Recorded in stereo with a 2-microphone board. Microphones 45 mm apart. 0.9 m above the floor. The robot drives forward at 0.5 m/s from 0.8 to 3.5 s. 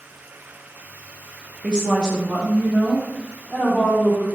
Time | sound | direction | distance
1.6 | a woman speaking | 20° right (ahead or behind) | 0.6 m